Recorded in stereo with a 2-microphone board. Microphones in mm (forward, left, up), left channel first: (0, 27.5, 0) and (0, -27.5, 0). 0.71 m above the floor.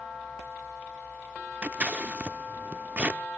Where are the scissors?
25° right (ahead or behind), 0.6 m.